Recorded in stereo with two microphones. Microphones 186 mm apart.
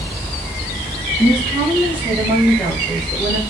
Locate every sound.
1.2 s a woman speaking: 15° left (ahead or behind), 2 m; by 3.4 s 5° left (ahead or behind), 1.3 m